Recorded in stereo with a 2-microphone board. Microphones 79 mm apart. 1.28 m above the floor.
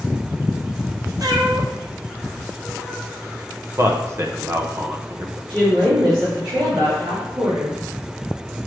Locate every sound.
1.2 s a cat meowing: 55° right (ahead or behind), 0.9 m; by 3.1 s 20° right (ahead or behind), 1.3 m
3.8 s a man speaking: 35° right (ahead or behind), 0.8 m
5.5 s a woman speaking: 70° right (ahead or behind), 2 m